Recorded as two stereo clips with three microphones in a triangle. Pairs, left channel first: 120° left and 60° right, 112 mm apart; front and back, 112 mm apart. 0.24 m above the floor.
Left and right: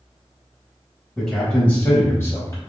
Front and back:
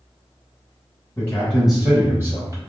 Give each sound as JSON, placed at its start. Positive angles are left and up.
{"t": 1.2, "sound": "a man speaking", "azimuth_deg": 35, "distance_m": 1.1}